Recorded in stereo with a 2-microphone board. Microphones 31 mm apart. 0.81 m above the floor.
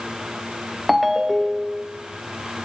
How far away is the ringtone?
About 0.5 m.